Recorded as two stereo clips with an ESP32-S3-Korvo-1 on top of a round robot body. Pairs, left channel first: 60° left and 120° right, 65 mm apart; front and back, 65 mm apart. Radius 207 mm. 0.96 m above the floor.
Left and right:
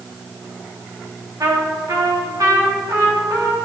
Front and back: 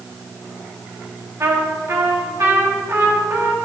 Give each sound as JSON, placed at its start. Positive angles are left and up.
{"t": 1.4, "sound": "a trumpet", "azimuth_deg": -140, "distance_m": 2.5}